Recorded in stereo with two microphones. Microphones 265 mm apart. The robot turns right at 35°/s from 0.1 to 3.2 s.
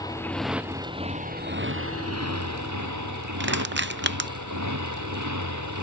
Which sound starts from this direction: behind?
A motorcycle, at 0.0 s.